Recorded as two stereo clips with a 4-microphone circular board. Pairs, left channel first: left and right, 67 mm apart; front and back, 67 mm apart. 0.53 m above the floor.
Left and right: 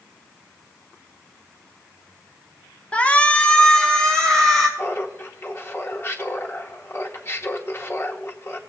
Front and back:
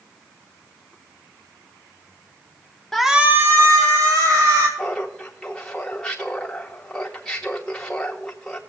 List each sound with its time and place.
2.9 s a shout: 70° left, 0.7 m; by 4.7 s 170° left, 2 m
4.8 s laughter: 75° left, 0.8 m